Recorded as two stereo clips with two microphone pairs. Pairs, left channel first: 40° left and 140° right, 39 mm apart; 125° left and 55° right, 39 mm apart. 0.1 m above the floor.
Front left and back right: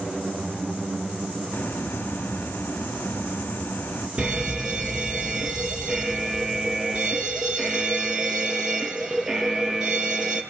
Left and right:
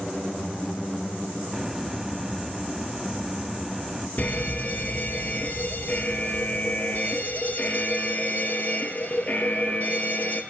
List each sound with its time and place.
1.5 s a hiss: 30° left, 1.5 m
4.2 s a fire alarm: 160° left, 3.5 m